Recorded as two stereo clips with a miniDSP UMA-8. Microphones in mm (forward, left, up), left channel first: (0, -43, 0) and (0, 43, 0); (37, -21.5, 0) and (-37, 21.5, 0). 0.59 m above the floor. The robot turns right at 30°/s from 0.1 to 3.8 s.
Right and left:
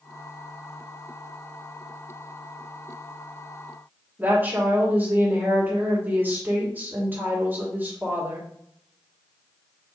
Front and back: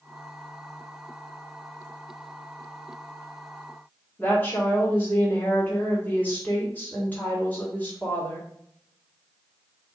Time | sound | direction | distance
4.2 | a woman speaking | 30° left | 1.6 m